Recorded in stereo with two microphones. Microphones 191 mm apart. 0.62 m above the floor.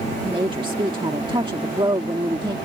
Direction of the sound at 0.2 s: 25° right (ahead or behind).